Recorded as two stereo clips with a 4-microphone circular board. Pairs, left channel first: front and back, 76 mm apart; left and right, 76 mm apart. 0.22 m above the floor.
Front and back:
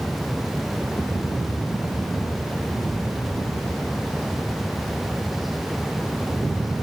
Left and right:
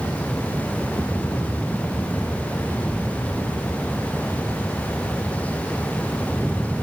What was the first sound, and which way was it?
Only background noise.